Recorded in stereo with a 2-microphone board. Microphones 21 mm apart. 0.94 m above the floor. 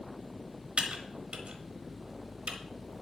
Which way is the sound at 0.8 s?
70° right (ahead or behind).